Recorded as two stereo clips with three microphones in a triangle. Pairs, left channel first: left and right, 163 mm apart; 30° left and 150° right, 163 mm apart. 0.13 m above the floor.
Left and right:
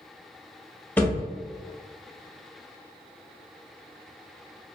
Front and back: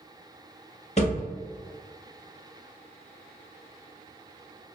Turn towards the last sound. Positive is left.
turn(degrees=15)